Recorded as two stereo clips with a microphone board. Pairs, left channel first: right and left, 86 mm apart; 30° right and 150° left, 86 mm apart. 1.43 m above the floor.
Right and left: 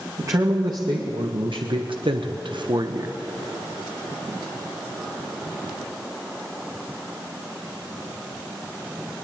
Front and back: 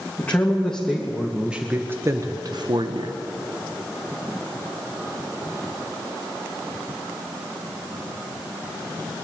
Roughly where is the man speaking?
Ahead left.